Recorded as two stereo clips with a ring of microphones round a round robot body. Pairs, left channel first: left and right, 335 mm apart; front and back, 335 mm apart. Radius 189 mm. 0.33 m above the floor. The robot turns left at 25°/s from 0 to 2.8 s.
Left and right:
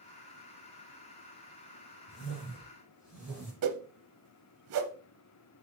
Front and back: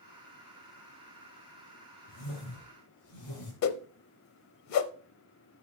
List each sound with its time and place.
2.1 s a whoosh: 40° left, 4 m; by 3.5 s 20° left, 4 m
3.6 s a whoosh: 40° right, 0.7 m